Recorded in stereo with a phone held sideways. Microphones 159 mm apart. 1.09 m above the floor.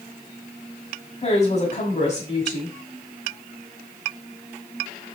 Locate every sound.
1.2 s a woman speaking: 35° left (ahead or behind), 5.5 m